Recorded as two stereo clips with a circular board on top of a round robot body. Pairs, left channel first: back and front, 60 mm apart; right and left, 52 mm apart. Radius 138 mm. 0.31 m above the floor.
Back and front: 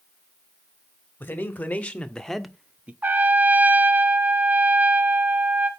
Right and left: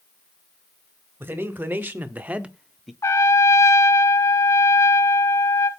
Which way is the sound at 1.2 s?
125° left.